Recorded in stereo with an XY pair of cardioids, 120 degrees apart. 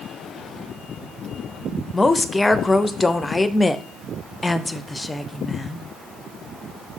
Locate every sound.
1.9 s a woman speaking: 15° left, 0.6 m